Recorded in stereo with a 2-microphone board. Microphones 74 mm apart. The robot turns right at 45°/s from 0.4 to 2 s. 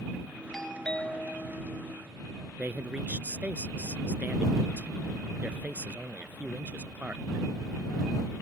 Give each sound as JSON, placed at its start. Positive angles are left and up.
{"t": 0.5, "sound": "a doorbell", "side_deg": 5}
{"t": 2.6, "sound": "a man speaking", "side_deg": -25}